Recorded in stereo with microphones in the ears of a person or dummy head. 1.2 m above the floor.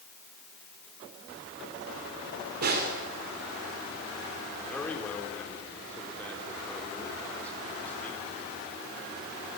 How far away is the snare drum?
About 3 m.